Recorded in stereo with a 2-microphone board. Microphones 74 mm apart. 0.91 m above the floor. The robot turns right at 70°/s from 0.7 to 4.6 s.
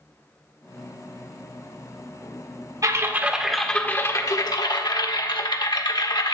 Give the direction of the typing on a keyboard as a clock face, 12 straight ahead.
2 o'clock.